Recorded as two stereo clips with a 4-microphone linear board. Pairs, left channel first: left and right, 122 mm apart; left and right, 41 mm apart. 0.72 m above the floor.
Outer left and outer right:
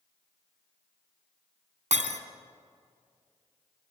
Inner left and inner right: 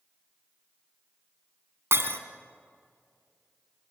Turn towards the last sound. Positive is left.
turn(degrees=-70)  # may be behind; listen again after turning